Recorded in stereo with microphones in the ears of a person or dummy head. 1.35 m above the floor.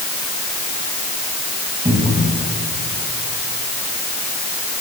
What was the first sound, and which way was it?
A cupboard door, 25° right (ahead or behind).